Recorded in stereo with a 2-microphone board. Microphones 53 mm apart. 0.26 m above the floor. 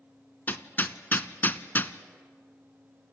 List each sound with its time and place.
0.5 s hammering: 40° left (ahead or behind), 0.8 m